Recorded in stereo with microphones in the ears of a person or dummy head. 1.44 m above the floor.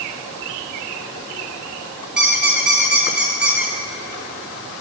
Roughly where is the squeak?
Centre.